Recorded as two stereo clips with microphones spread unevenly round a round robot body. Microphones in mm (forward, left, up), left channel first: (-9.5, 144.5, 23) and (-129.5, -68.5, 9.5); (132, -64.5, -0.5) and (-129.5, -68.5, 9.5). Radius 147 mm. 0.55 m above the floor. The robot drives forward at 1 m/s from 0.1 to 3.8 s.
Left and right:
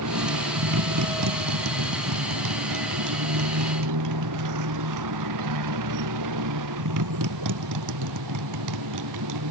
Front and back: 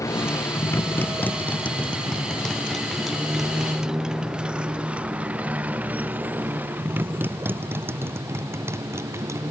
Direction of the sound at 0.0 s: 80° right.